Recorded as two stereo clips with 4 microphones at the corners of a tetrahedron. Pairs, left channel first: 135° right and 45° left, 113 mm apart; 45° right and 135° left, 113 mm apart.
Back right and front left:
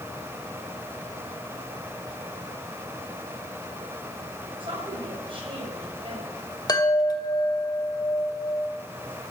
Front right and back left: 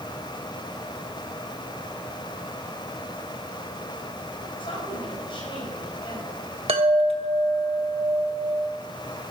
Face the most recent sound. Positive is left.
turn(degrees=170)